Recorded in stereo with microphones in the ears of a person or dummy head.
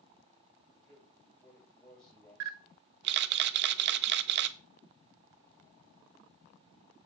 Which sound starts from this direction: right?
A camera shutter, at 2.4 s.